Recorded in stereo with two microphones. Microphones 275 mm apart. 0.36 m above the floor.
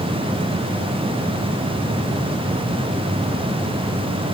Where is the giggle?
No giggle in this recording.